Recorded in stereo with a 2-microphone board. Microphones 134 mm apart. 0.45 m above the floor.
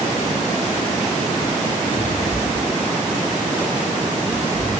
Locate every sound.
1.9 s a cupboard door: 50° right (ahead or behind), 8.5 m